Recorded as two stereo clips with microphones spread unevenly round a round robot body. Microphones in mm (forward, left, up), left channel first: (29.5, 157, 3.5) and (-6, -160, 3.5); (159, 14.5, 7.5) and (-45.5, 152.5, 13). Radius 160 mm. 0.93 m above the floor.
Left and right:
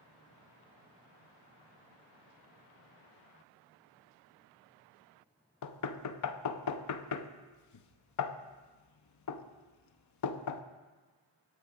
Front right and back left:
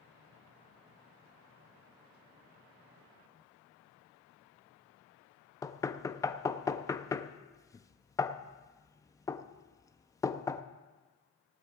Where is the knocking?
45° left, 0.8 m.